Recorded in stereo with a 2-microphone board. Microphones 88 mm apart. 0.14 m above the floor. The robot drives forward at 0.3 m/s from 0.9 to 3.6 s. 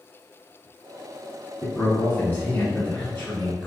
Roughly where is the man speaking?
Left.